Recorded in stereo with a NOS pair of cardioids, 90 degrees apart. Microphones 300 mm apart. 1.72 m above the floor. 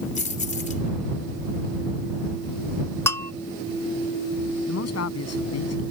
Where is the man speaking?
55° left.